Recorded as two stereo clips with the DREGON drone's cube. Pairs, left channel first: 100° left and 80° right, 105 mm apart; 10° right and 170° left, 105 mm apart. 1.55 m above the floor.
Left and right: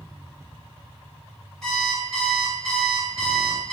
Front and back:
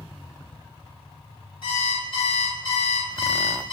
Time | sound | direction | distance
1.6 | an alarm clock | 20° left | 1.6 m